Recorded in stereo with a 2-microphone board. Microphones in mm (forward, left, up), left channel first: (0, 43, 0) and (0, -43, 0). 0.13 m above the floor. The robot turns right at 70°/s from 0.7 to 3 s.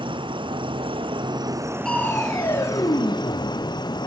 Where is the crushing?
5° left, 2.5 m; by 4.1 s 90° left, 2.5 m.